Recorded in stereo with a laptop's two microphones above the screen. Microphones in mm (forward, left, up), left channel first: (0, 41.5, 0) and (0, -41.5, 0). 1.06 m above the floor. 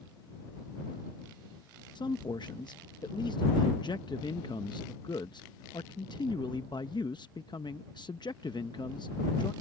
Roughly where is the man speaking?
Left.